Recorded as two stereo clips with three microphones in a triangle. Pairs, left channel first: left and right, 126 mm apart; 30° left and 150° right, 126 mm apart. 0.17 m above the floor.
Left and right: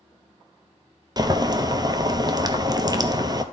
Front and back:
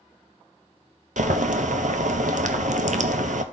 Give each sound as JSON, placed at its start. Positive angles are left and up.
{"t": 1.2, "sound": "boiling", "azimuth_deg": -150, "distance_m": 0.6}